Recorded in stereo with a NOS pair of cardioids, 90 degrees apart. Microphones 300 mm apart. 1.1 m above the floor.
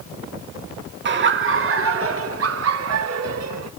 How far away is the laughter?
About 2 m.